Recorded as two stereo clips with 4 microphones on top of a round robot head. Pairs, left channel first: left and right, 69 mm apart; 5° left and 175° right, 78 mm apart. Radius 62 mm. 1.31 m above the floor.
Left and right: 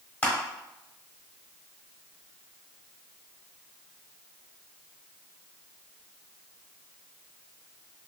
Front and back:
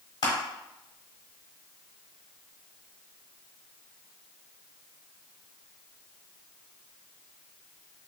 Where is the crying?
I don't hear crying.